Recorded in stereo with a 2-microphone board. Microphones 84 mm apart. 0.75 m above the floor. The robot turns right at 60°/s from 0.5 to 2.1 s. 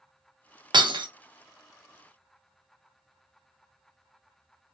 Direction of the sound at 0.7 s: 60° right (ahead or behind).